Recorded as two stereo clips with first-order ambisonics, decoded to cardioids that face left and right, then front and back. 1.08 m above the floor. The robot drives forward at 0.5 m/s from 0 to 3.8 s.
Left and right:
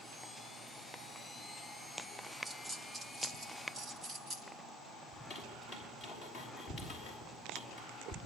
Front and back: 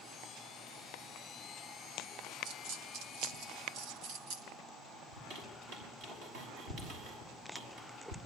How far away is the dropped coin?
About 1.9 m.